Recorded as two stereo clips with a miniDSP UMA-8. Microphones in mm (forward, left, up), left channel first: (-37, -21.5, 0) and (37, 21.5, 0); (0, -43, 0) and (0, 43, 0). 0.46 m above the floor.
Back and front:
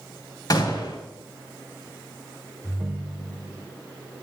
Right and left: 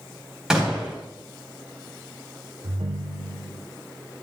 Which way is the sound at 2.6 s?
105° left.